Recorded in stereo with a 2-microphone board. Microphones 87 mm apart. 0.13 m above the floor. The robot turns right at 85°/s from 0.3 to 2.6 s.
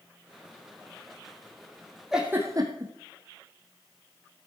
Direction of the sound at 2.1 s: 5° right (ahead or behind).